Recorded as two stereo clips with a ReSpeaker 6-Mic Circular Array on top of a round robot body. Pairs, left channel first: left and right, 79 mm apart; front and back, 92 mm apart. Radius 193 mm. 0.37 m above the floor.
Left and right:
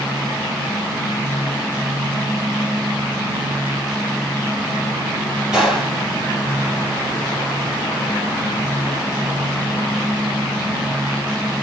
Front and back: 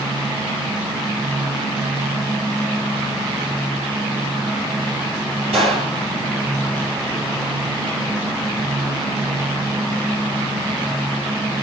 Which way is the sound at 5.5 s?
170° right.